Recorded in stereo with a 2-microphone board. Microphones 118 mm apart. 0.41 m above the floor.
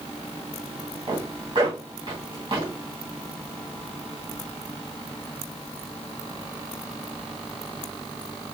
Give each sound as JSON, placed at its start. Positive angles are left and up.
{"t": 1.1, "sound": "a zipper", "side_deg": -40, "distance_m": 2.5}